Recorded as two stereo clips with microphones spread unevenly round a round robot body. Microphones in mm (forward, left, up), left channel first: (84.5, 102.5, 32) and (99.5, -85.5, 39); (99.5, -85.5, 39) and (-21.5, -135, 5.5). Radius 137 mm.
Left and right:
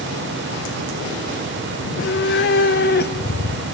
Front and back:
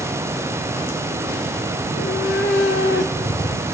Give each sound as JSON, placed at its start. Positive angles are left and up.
{"t": 1.8, "sound": "a cat meowing", "azimuth_deg": 75, "distance_m": 1.0}